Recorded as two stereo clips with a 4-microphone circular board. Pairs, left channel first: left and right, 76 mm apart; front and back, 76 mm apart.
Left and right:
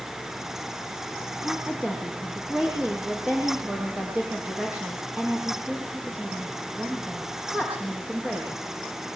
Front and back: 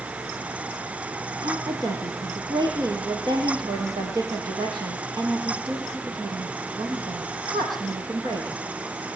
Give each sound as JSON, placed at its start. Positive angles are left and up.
{"t": 1.4, "sound": "a woman speaking", "azimuth_deg": -160, "distance_m": 7.0}